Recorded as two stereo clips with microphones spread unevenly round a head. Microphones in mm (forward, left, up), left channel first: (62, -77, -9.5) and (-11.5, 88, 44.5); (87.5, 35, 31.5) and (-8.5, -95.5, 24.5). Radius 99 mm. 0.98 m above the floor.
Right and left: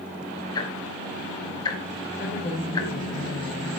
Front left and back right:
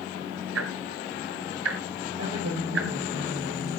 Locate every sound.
0.6 s ticking: 145° right, 1.5 m
2.2 s a woman speaking: 135° right, 5.5 m